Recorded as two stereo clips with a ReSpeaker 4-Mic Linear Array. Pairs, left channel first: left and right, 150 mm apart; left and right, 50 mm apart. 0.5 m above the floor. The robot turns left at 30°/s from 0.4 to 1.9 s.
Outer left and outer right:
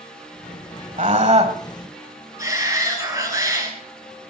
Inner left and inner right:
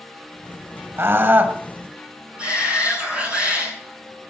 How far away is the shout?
About 7 m.